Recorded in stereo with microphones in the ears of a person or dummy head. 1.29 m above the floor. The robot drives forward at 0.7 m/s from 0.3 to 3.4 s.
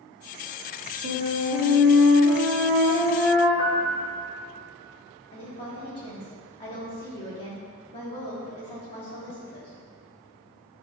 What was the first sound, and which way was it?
A flute, 70° right (ahead or behind).